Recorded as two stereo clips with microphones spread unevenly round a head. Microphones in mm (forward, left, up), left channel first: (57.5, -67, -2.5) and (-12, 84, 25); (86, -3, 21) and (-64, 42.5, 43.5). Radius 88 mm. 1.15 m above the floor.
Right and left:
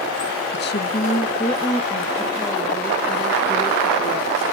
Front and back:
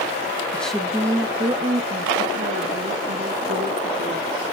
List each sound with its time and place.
0.5 s a woman speaking: 100° right, 0.9 m; by 4.5 s 160° right, 3.5 m